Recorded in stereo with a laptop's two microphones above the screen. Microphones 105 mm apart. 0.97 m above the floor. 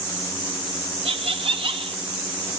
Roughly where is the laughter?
Right.